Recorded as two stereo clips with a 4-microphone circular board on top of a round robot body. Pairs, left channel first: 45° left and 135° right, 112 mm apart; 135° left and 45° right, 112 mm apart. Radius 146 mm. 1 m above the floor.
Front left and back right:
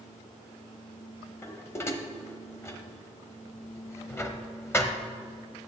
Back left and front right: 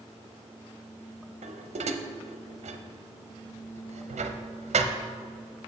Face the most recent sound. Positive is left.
turn(degrees=-25)